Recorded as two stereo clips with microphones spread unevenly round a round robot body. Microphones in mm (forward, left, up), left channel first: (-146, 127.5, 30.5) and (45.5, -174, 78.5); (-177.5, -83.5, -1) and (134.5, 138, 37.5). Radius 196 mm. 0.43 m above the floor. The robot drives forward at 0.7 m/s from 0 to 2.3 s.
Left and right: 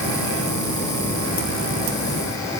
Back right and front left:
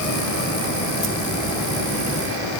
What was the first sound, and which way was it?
Only background noise.